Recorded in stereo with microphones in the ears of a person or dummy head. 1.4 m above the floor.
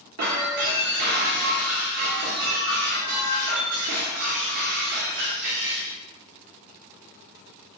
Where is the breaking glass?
45° right (ahead or behind), 1.1 m.